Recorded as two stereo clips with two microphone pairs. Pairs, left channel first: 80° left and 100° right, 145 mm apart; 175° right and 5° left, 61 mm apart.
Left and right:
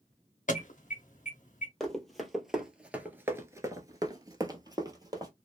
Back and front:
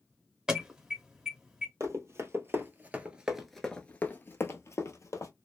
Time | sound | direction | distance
0.5 | an alarm | 85° left | 0.8 m
1.8 | running footsteps | 10° right | 1.2 m